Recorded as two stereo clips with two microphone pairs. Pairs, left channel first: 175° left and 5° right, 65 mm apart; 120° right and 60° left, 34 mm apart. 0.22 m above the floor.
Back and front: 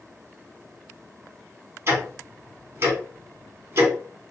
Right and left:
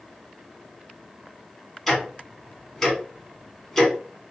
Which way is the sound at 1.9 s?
40° right.